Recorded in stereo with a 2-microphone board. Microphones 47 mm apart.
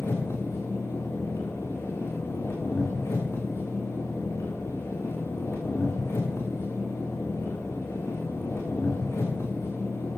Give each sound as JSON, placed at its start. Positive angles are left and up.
{"t": 0.0, "sound": "an engine running", "side_deg": 85, "distance_m": 4.0}